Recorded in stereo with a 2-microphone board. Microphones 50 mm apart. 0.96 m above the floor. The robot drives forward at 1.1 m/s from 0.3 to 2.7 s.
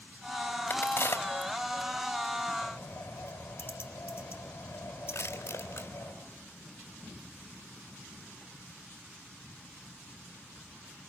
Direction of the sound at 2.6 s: 45° left (ahead or behind).